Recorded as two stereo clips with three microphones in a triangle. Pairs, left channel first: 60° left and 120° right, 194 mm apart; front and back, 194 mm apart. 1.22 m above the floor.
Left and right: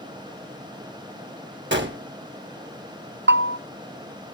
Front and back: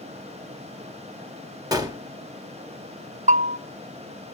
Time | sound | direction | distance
1.7 | a gunshot | 110° right | 1.3 m
3.3 | a bell | 130° right | 0.6 m